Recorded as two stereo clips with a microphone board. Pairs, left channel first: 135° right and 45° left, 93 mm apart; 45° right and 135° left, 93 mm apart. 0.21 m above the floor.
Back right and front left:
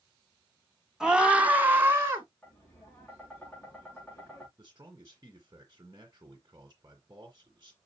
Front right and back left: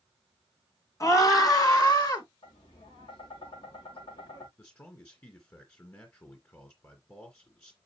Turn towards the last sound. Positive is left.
turn(degrees=5)